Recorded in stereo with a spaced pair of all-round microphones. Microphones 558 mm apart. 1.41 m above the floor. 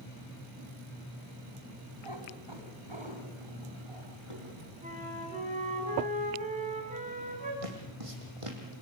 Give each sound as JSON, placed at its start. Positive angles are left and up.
{"t": 2.0, "sound": "a cat meowing", "side_deg": -50, "distance_m": 3.5}
{"t": 4.8, "sound": "a flute", "side_deg": -15, "distance_m": 6.5}
{"t": 7.6, "sound": "footsteps", "side_deg": -75, "distance_m": 4.5}